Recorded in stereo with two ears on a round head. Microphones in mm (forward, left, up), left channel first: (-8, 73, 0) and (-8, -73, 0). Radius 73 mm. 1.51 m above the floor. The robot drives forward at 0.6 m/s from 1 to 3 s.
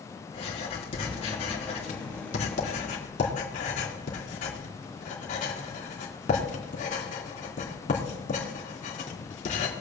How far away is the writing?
About 3.5 m.